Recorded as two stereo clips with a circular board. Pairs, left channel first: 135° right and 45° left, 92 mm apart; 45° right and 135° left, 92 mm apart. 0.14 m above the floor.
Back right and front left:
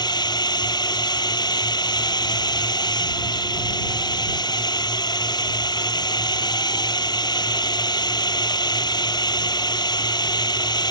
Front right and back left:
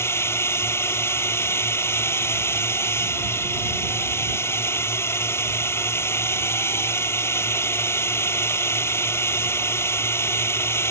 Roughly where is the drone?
Right.